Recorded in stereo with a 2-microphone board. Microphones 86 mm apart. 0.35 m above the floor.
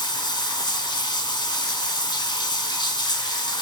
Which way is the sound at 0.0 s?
60° left (ahead or behind).